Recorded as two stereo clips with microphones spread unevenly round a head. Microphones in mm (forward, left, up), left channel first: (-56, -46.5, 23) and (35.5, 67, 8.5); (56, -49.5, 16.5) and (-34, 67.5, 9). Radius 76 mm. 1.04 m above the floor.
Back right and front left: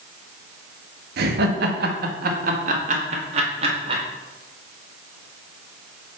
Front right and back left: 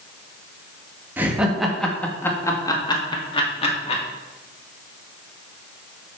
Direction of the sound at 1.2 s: 50° left.